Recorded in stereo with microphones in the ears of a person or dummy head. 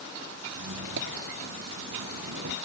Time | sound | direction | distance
0.6 | a squeak | 65° right (ahead or behind) | ?